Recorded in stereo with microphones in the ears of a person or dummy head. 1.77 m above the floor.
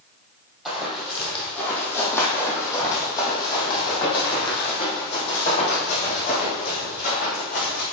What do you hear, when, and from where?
0.7 s running footsteps: centre (ahead or behind), 3.5 m; by 7.8 s 45° left (ahead or behind), 5 m